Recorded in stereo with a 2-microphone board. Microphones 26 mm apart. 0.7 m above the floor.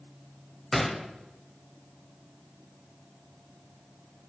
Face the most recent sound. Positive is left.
turn(degrees=10)  # may be behind; listen again after turning